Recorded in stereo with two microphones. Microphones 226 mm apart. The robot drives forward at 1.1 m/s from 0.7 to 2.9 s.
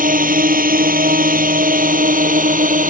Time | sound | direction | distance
0.0 | a drone | 35° right (ahead or behind) | ?